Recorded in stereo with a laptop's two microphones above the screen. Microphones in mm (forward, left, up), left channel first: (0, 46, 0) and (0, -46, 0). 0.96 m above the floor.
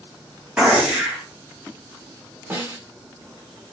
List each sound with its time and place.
0.6 s a gunshot: 10° right (ahead or behind), 2.0 m
2.5 s a snare drum: 20° right (ahead or behind), 1.8 m